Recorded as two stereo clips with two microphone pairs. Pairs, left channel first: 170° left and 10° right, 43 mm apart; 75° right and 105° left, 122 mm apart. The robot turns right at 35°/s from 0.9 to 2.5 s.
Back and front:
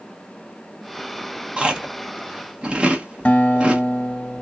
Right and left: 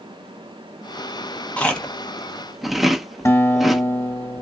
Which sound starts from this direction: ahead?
Chewing, at 1.6 s.